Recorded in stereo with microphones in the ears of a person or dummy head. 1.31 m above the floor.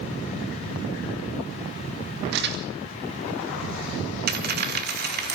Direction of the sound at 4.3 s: 50° right (ahead or behind).